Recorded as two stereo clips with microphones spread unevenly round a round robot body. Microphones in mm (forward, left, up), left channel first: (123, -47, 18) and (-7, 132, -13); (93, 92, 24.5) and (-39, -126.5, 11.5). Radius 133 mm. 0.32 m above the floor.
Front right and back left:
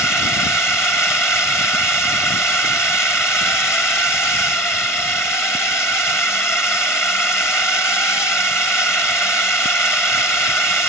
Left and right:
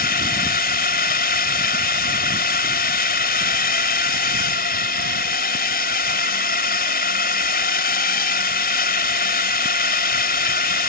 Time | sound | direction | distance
0.0 | a drone | 30° left | ?